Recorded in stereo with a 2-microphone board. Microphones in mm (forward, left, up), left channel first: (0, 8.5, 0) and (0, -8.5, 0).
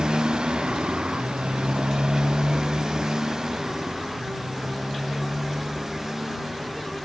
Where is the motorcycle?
55° right (ahead or behind); by 7.1 s 25° right (ahead or behind).